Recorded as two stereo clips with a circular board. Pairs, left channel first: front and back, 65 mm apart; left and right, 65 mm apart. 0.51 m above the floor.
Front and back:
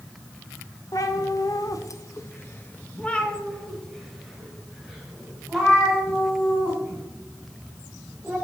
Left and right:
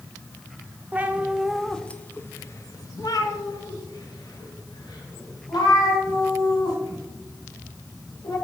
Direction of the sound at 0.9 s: 25° right.